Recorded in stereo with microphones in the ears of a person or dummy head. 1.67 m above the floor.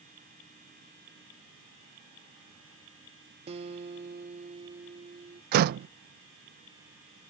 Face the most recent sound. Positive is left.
turn(degrees=-50)  # may be behind; listen again after turning